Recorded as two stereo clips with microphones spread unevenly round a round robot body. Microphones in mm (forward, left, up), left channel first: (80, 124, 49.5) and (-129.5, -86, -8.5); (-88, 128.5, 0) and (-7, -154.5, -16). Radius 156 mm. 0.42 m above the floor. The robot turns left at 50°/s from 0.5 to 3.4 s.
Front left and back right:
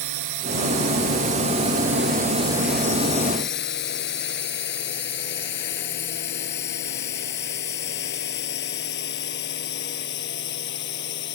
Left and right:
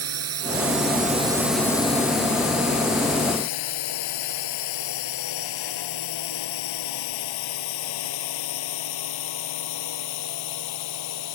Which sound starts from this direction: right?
A drone, at 0.0 s.